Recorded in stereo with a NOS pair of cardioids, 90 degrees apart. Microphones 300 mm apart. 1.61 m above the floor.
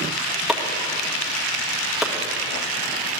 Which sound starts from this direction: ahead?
Chopping, at 0.5 s.